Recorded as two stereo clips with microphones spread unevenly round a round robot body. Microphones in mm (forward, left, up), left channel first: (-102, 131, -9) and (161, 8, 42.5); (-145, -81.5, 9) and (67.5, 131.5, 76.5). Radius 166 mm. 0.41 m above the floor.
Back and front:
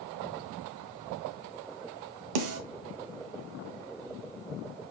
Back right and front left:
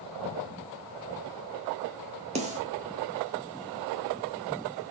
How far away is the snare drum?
About 1.0 m.